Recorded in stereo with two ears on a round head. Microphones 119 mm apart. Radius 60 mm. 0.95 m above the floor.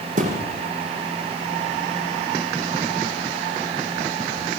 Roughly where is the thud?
Right.